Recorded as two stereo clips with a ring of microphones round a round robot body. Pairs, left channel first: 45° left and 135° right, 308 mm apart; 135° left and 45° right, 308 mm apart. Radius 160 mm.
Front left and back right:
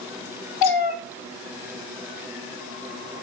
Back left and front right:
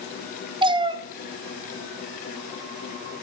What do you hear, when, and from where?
0.6 s a cat meowing: 30° left, 0.8 m